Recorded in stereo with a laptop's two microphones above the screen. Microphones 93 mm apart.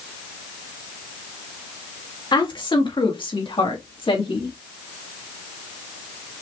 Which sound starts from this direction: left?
A woman speaking, at 2.3 s.